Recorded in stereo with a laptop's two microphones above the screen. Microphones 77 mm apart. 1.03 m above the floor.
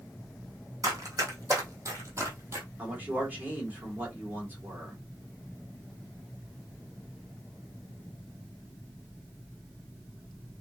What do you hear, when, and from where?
0.8 s running footsteps: 45° right (ahead or behind), 3 m; by 2.7 s 35° right (ahead or behind), 1.8 m
2.8 s a man speaking: 20° right (ahead or behind), 2.5 m